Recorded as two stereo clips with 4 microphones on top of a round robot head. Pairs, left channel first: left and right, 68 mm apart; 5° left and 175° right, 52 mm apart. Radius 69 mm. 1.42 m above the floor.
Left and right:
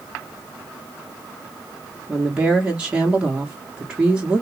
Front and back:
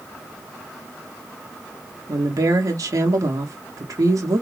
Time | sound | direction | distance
2.1 | a woman speaking | 170° right | 1.2 m